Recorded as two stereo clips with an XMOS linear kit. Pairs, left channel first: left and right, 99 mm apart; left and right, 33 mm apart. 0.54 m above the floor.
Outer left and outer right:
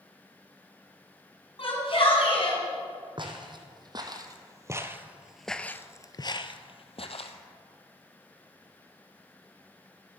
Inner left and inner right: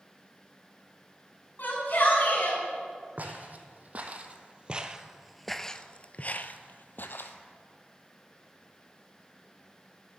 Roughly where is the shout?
Left.